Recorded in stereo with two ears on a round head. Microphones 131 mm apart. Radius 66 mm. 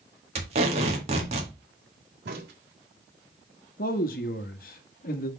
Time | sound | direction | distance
0.3 | tape being pulled | 45° right (ahead or behind) | 1.9 m
2.2 | a crack | 80° right | 1.8 m
3.8 | a man speaking | 65° left (ahead or behind) | 1.1 m